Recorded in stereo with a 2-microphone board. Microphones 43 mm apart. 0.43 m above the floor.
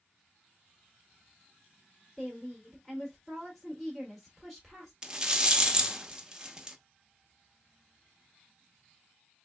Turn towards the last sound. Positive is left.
turn(degrees=-15)  # may be behind; listen again after turning